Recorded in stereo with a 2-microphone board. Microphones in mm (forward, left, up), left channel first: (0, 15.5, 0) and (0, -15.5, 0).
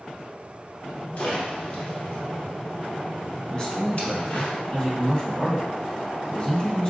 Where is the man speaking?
30° left (ahead or behind), 1.2 m.